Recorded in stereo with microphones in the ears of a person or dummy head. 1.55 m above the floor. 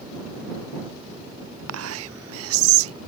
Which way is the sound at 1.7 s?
75° right (ahead or behind).